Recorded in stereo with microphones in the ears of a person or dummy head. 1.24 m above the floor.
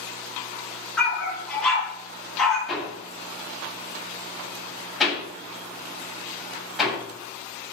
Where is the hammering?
Centre (ahead or behind), 8 m.